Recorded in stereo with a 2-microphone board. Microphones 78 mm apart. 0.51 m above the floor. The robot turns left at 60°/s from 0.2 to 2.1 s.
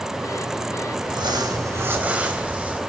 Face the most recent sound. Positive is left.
turn(degrees=-160)